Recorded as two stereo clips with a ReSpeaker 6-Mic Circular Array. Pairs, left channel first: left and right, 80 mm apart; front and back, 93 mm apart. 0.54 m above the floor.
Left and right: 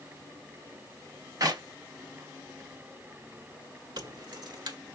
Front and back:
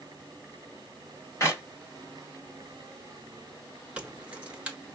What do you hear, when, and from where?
1.4 s a clap: 55° right, 2.5 m
4.0 s keys jangling: 105° right, 1.3 m